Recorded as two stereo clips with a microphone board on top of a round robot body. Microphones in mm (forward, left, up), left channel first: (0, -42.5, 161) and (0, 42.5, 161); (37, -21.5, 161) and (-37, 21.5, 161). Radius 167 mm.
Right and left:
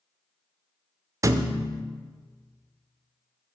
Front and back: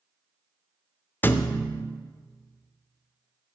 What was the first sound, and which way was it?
A thud, 35° left.